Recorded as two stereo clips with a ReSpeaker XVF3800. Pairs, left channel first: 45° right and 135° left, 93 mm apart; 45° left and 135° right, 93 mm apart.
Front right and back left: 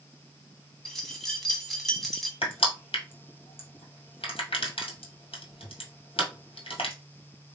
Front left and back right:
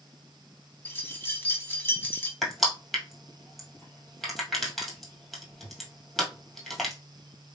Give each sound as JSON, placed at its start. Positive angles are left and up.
{"t": 0.8, "sound": "keys jangling", "azimuth_deg": 40, "distance_m": 1.0}
{"t": 2.4, "sound": "crushing", "azimuth_deg": -45, "distance_m": 1.5}